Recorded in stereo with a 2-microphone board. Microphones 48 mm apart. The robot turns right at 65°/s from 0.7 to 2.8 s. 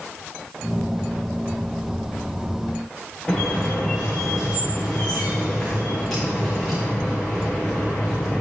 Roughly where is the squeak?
Centre.